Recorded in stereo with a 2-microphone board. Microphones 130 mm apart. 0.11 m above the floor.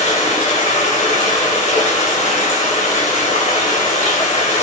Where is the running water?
55° left (ahead or behind), 0.7 m.